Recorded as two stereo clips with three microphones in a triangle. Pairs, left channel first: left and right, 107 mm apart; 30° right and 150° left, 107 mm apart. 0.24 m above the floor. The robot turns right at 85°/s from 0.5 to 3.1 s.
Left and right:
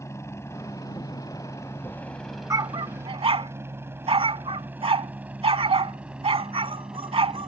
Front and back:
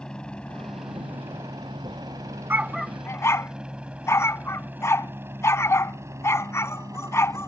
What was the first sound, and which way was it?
A helicopter, 45° left.